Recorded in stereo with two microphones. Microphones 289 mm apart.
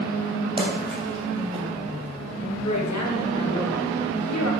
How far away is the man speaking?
About 1.8 m.